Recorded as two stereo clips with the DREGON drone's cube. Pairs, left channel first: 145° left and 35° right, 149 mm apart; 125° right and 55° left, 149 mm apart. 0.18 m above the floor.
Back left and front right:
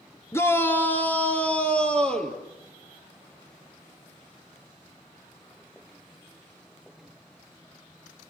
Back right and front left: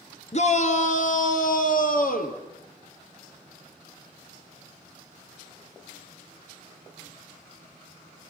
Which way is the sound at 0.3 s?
145° right.